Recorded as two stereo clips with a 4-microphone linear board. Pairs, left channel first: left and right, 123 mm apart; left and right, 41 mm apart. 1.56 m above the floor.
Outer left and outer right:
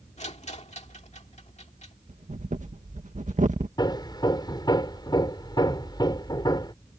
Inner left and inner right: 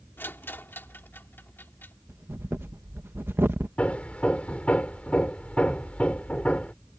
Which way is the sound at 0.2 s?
65° left (ahead or behind).